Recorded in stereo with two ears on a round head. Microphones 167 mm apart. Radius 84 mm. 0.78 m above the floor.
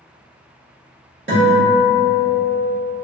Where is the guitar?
55° right (ahead or behind), 1.3 m.